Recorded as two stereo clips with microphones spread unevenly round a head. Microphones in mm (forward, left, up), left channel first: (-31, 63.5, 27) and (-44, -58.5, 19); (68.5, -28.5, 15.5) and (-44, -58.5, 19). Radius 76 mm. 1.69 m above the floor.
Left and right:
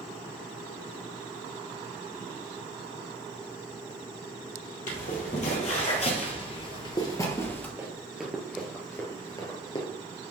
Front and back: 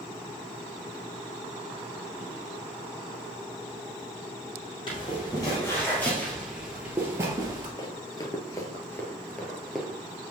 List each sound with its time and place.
4.9 s footsteps: 75° left, 3.5 m; by 7.7 s 150° left, 2.5 m
7.8 s running footsteps: 20° right, 2 m; by 9.9 s 110° left, 2 m